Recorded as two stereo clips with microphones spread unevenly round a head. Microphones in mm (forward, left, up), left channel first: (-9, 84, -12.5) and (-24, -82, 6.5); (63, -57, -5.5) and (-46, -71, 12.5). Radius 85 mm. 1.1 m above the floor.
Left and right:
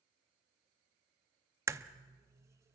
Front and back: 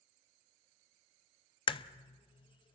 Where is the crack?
30° right, 0.6 m.